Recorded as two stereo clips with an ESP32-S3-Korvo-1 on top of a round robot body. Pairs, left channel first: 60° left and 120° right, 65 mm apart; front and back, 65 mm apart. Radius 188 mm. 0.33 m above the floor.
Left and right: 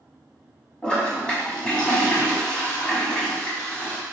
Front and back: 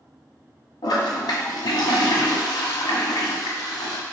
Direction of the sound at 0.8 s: 15° right.